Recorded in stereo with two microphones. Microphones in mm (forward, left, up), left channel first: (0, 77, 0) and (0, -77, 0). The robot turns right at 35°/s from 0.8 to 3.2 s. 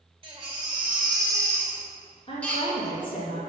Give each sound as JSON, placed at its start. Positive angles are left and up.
{"t": 0.2, "sound": "a baby crying", "azimuth_deg": -45, "distance_m": 2.0}
{"t": 2.3, "sound": "a woman speaking", "azimuth_deg": 35, "distance_m": 3.0}